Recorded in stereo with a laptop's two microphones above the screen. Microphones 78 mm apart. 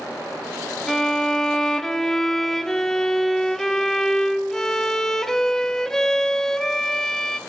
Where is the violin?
5° left (ahead or behind), 0.6 m.